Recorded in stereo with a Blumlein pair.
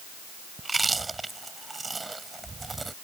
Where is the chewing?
10° right.